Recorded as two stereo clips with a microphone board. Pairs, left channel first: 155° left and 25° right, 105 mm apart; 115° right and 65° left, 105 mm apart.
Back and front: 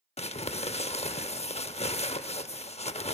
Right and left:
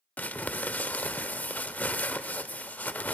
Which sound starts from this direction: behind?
Crumpling, at 0.2 s.